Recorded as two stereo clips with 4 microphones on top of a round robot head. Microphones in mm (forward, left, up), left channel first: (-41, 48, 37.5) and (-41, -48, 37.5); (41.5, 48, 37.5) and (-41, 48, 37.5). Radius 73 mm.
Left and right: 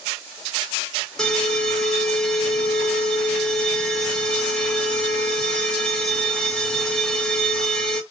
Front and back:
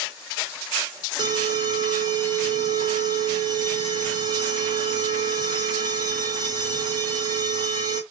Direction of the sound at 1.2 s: 170° left.